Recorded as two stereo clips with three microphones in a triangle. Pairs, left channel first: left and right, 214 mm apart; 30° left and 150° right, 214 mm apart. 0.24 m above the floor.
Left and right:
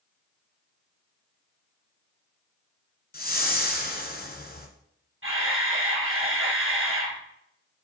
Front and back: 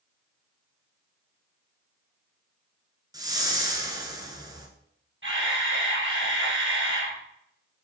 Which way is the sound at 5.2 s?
115° right.